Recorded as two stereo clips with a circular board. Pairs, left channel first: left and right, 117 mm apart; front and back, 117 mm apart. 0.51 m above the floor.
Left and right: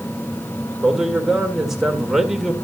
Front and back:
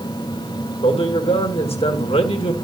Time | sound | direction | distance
0.8 | a man speaking | 5° right | 1.9 m